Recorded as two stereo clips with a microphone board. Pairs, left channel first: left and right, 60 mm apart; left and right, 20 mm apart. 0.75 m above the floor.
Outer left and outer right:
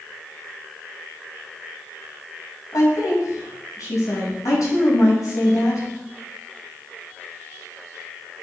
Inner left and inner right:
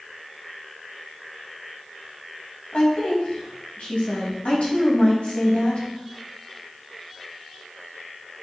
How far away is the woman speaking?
About 4 m.